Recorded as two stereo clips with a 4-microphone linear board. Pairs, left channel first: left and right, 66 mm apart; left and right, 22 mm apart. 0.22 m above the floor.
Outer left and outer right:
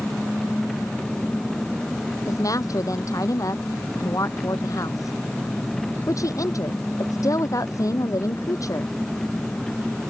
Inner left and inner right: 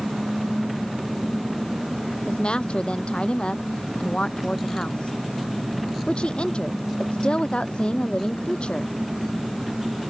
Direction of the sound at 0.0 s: 10° left (ahead or behind).